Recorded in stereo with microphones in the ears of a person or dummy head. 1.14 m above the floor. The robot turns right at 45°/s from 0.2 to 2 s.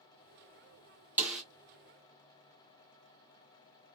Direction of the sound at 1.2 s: 5° right (ahead or behind).